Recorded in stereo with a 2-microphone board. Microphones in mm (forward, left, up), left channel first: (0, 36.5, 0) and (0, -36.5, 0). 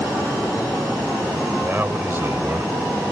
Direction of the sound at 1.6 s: 25° right (ahead or behind).